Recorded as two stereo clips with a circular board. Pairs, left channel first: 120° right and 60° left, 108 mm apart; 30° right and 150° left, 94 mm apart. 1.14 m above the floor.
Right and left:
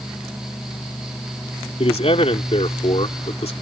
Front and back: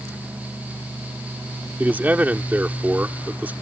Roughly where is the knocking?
I don't hear knocking.